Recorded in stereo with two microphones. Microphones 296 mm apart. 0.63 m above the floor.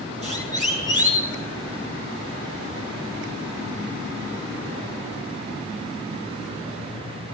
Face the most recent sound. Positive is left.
turn(degrees=-25)  # may be behind; listen again after turning